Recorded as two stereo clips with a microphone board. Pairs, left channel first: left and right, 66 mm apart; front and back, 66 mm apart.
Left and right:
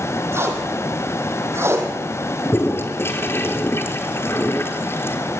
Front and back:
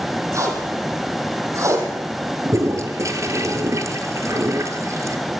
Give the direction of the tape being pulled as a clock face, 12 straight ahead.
5 o'clock.